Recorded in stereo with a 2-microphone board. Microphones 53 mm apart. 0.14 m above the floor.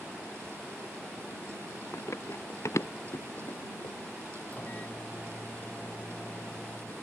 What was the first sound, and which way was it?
Running footsteps, 60° left (ahead or behind).